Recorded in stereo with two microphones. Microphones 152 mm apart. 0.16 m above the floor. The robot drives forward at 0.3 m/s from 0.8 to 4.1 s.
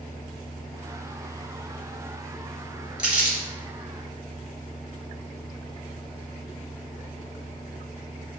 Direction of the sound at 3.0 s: 5° right (ahead or behind).